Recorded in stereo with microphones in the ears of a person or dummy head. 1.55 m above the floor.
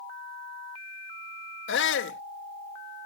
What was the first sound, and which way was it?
A shout, 85° left.